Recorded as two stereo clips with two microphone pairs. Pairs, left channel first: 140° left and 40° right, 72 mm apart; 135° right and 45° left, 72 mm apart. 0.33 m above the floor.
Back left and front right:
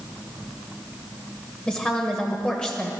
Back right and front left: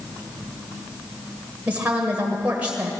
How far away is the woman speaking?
About 1.5 m.